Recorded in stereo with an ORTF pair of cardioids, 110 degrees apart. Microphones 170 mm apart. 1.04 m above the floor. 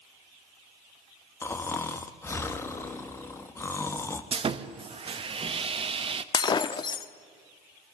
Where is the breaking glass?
30° left, 1.1 m.